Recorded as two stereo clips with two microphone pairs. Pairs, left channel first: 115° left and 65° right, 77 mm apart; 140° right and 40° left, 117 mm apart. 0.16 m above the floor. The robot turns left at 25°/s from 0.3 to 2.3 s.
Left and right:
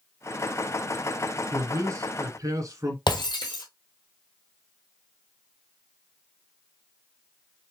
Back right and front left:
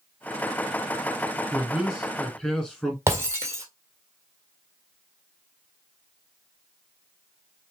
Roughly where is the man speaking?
Ahead right.